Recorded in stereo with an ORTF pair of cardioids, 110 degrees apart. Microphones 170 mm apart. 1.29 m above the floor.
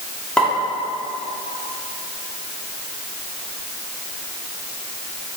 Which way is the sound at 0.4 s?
5° left.